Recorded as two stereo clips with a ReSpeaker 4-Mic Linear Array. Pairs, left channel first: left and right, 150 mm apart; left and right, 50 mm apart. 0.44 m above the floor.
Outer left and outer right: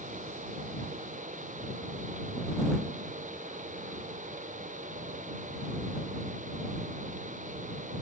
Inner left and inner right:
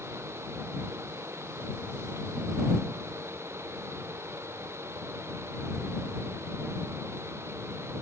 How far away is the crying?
I don't hear crying.